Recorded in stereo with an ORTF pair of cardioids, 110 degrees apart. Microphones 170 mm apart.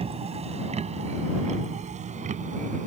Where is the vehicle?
35° right; by 2.9 s 45° right.